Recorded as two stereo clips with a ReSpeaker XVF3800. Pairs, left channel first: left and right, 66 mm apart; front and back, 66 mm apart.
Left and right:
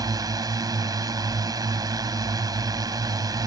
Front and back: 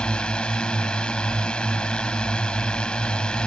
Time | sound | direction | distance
0.0 | a drone | 75° right | ?